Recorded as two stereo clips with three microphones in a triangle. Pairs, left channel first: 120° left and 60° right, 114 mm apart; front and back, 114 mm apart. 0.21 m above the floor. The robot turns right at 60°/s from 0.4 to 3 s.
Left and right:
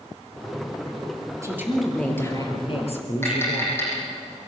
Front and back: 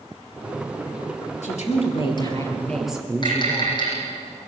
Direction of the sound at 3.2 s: 50° left.